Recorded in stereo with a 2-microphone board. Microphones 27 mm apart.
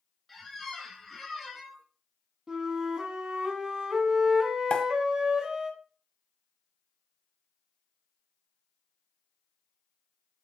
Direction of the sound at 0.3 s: 5° left (ahead or behind).